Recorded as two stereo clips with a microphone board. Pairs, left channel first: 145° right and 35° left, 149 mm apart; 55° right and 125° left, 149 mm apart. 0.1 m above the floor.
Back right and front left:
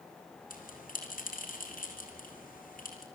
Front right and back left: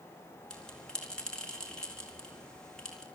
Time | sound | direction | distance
0.5 | a bell | 140° right | 4.5 m